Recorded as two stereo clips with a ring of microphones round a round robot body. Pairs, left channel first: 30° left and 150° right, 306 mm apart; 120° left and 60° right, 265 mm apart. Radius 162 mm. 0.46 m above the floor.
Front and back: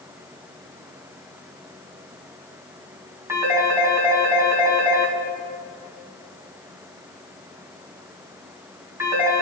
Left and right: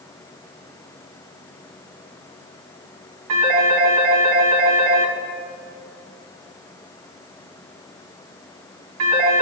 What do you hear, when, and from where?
3.3 s a phone ringing: 70° right, 2.5 m